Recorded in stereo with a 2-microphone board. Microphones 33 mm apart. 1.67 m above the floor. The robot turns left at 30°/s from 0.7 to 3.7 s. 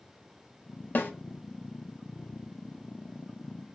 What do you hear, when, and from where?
0.9 s a snare drum: 60° left (ahead or behind), 0.5 m